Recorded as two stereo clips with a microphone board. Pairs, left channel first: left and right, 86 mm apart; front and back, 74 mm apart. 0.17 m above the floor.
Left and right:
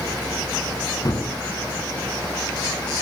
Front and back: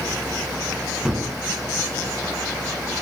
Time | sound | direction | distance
1.1 | a gunshot | 100° left | 1.9 m